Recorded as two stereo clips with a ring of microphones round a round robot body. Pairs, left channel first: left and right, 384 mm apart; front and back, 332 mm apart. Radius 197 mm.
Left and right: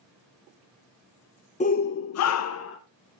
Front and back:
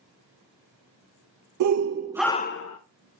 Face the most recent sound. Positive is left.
turn(degrees=35)